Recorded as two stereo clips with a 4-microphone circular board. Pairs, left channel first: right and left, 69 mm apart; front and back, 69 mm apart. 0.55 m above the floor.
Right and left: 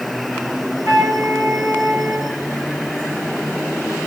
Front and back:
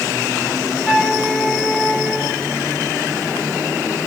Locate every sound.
0.8 s a flute: 90° left, 2.5 m